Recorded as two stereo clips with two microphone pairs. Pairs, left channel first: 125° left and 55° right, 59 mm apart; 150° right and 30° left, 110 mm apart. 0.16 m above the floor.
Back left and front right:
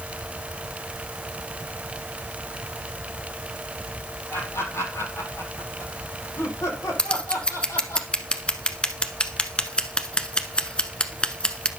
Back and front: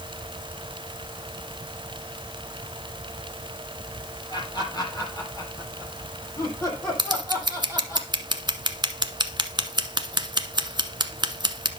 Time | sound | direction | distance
4.3 | laughter | 160° left | 6 m
7.0 | scissors | 60° left | 1.0 m